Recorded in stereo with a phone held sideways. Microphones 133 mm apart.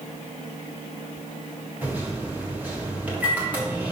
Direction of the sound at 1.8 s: 10° right (ahead or behind).